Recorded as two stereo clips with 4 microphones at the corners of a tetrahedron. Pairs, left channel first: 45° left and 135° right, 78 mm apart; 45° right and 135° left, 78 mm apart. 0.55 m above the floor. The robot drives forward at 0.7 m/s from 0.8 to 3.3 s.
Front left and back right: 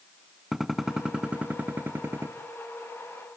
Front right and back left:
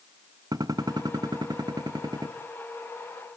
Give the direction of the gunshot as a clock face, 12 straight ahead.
7 o'clock.